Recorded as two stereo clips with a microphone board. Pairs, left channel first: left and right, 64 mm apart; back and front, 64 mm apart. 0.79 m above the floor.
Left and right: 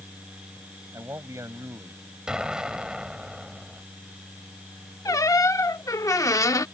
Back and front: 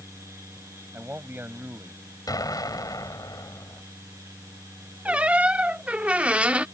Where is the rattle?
I don't hear a rattle.